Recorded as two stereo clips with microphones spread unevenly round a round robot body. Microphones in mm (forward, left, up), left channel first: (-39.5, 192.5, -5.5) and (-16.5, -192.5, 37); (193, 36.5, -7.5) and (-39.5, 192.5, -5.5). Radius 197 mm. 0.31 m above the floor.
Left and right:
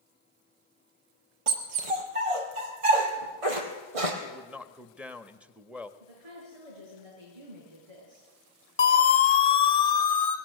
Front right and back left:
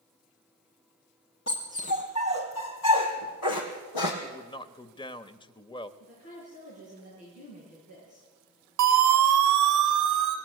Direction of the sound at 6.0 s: 95° right.